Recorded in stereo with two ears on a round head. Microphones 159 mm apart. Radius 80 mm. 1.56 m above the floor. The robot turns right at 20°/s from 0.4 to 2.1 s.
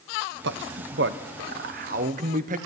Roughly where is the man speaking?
Right.